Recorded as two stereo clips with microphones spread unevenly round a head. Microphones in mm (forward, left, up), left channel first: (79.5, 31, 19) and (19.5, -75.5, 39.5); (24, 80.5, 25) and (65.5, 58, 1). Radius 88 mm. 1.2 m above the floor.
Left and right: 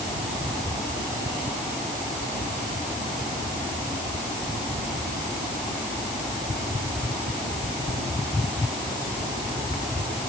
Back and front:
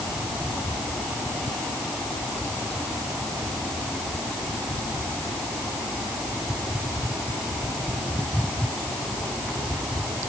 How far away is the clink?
No clink in this recording.